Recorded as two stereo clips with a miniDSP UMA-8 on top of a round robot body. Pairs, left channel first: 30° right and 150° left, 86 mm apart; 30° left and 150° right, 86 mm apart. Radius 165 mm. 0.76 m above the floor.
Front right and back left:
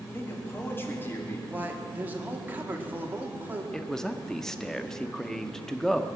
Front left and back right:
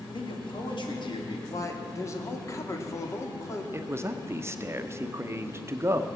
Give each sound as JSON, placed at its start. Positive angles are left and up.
{"t": 0.1, "sound": "a man speaking", "azimuth_deg": 35, "distance_m": 2.5}
{"t": 1.5, "sound": "a man speaking", "azimuth_deg": 80, "distance_m": 1.7}
{"t": 3.7, "sound": "a man speaking", "azimuth_deg": -110, "distance_m": 1.0}